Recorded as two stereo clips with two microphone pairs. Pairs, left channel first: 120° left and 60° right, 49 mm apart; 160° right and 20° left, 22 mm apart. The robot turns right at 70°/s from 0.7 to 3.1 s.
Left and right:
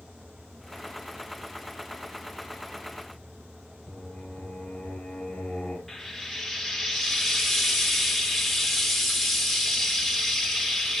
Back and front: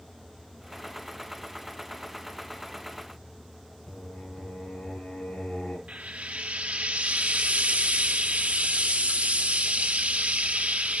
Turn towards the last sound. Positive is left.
turn(degrees=30)